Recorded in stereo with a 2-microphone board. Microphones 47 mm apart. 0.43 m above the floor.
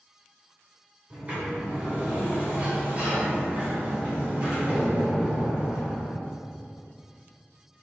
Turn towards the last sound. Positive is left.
turn(degrees=-25)  # may be behind; listen again after turning